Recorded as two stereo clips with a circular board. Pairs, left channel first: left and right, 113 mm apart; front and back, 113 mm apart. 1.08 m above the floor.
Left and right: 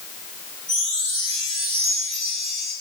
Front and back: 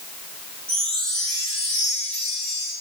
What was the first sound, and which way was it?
A chime, 85° right.